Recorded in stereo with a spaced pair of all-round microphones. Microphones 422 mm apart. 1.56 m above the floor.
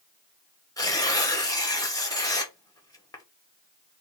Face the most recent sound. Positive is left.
turn(degrees=10)  # may be behind; listen again after turning